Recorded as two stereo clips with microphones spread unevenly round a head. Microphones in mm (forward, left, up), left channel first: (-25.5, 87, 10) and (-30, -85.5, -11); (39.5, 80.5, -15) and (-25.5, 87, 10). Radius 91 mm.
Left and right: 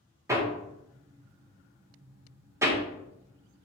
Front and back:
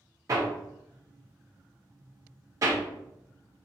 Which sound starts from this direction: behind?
Hammering, at 0.3 s.